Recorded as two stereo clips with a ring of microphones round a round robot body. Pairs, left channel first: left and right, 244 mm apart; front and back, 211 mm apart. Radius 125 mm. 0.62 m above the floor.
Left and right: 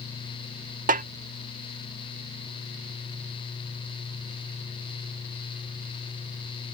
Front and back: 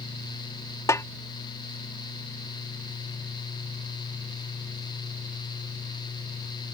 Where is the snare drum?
65° right.